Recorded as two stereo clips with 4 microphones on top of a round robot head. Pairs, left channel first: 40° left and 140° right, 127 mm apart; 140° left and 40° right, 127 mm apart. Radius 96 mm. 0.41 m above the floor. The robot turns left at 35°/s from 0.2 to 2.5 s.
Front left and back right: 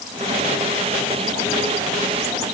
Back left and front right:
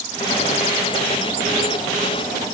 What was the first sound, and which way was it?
Only background noise.